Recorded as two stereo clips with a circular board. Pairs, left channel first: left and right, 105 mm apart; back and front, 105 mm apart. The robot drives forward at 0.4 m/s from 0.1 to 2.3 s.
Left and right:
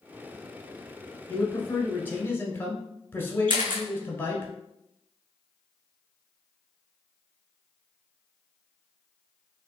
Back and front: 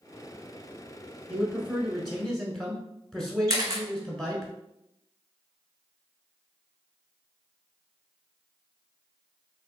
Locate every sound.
1.3 s a man speaking: 50° left, 1.2 m; by 4.5 s 105° left, 1.1 m
3.5 s a camera shutter: 60° right, 1.3 m